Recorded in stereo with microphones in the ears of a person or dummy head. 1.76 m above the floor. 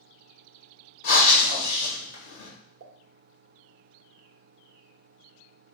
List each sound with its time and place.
1.0 s breathing: 55° left (ahead or behind), 1.3 m
2.8 s a pop: 65° right (ahead or behind), 0.5 m